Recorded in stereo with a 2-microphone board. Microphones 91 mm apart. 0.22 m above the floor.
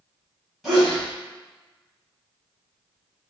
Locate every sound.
0.6 s a sneeze: centre (ahead or behind), 1.7 m